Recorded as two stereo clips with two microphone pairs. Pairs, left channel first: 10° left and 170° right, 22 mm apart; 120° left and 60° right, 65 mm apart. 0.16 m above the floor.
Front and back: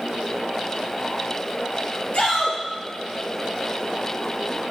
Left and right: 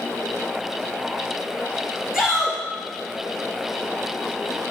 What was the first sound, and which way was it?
A shout, 20° left.